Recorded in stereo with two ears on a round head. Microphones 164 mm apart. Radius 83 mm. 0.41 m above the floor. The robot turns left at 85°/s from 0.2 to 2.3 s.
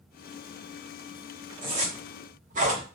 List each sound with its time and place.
1.6 s a zipper: 25° right (ahead or behind), 1.0 m; by 2.9 s 45° right (ahead or behind), 1.0 m